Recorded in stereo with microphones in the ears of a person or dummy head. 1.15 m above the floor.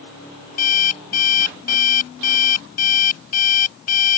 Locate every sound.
0.6 s an alarm clock: 45° left (ahead or behind)